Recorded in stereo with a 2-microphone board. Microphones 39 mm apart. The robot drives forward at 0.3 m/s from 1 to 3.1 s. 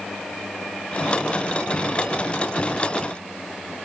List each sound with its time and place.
Only background noise.